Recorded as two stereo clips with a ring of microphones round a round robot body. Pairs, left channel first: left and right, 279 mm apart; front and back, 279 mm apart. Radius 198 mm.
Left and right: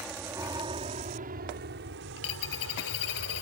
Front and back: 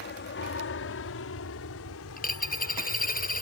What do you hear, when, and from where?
0.0 s an aircraft: 5° right; by 3.4 s 50° right
2.2 s a dropped coin: 60° left